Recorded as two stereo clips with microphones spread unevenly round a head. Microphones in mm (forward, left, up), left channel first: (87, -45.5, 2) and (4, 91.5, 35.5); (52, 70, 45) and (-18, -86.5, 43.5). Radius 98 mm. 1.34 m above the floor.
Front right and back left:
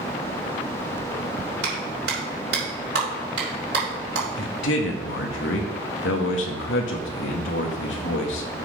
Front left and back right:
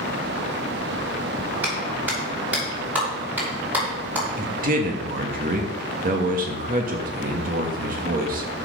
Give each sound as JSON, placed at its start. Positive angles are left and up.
{"t": 1.6, "sound": "a clap", "azimuth_deg": 165, "distance_m": 5.0}
{"t": 4.4, "sound": "a man speaking", "azimuth_deg": -75, "distance_m": 1.5}